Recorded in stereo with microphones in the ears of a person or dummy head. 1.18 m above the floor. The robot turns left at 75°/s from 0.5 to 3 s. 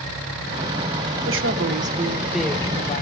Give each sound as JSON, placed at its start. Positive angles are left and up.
{"t": 1.2, "sound": "a woman speaking", "azimuth_deg": -90, "distance_m": 1.2}